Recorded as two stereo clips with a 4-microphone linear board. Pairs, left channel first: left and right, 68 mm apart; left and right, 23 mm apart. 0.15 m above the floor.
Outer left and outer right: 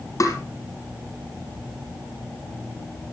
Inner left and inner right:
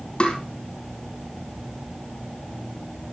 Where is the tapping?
50° left (ahead or behind), 4.5 m.